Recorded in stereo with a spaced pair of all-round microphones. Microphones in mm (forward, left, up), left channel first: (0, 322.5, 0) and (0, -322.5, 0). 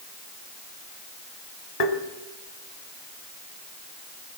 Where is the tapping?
70° left (ahead or behind), 2 m.